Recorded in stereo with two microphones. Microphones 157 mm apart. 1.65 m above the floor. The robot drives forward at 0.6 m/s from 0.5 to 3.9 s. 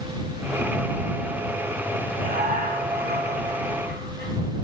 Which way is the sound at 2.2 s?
65° right (ahead or behind).